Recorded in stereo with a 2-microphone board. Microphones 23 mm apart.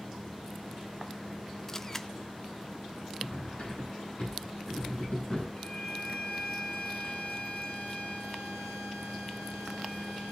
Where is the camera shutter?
20° left (ahead or behind), 0.5 m.